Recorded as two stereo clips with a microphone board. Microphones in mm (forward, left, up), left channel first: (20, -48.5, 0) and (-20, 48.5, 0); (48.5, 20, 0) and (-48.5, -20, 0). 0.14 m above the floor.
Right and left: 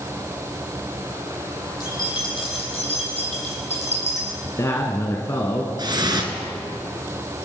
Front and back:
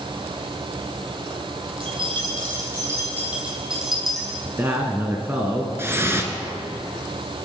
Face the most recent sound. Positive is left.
turn(degrees=145)